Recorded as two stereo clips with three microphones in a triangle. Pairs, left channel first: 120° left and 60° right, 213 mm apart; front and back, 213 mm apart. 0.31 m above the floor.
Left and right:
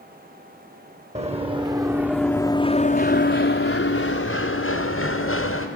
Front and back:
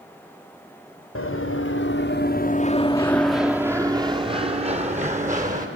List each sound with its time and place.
1.1 s running footsteps: straight ahead, 2 m; by 5.7 s 130° left, 3.5 m